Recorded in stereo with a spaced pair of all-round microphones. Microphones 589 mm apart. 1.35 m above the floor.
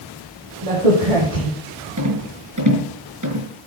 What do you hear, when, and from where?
0.6 s a crack: 80° right, 8 m
2.0 s a rattle: 30° right (ahead or behind), 5 m